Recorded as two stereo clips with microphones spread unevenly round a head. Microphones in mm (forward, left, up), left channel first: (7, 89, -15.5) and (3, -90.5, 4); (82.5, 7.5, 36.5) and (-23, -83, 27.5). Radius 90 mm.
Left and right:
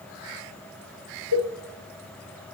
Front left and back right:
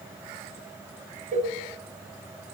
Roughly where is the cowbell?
Right.